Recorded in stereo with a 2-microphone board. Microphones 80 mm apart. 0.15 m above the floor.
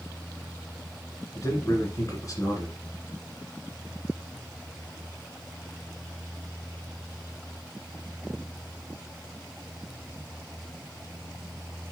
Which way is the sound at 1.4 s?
45° left (ahead or behind).